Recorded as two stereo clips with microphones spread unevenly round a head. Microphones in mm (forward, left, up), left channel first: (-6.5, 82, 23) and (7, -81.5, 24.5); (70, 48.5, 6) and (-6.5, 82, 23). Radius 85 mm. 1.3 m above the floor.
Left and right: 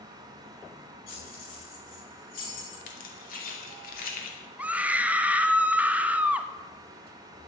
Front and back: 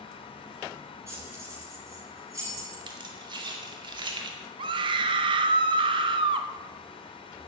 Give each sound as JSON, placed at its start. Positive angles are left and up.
{"t": 1.1, "sound": "keys jangling", "azimuth_deg": 100, "distance_m": 7.5}
{"t": 2.9, "sound": "keys jangling", "azimuth_deg": 135, "distance_m": 2.5}
{"t": 4.6, "sound": "a scream", "azimuth_deg": -165, "distance_m": 0.9}